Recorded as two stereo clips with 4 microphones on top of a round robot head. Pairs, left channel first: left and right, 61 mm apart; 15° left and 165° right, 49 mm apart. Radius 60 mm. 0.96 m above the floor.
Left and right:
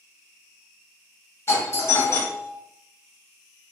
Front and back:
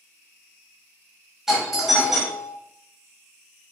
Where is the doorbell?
115° left, 1.2 m.